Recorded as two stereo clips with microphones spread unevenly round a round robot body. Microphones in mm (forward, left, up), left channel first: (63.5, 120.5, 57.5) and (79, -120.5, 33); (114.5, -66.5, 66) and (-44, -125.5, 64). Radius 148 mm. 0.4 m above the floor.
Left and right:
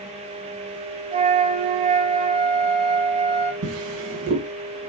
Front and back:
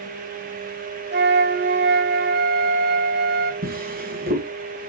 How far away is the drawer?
About 2.5 m.